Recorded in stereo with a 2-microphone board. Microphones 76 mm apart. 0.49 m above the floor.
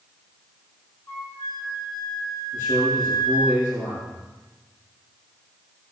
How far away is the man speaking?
About 7.5 m.